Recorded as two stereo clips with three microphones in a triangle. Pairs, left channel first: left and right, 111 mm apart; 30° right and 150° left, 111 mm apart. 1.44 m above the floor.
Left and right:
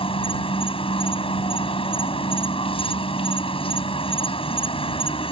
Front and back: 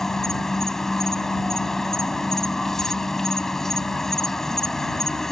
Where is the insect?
55° left.